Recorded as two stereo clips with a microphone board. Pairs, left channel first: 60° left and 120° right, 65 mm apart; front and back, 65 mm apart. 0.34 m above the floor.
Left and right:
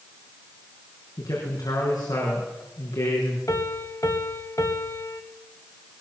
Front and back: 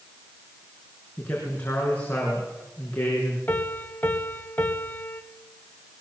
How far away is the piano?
About 1.8 m.